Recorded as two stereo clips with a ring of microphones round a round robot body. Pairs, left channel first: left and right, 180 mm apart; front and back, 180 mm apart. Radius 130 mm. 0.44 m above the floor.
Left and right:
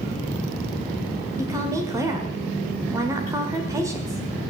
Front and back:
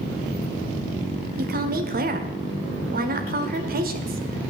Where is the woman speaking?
160° right, 1.7 m.